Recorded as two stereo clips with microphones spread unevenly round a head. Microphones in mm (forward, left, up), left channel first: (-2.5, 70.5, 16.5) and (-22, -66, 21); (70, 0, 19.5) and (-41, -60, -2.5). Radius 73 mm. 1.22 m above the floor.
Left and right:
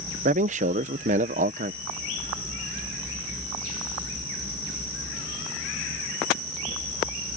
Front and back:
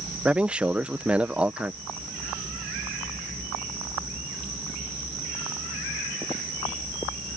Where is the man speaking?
75° right.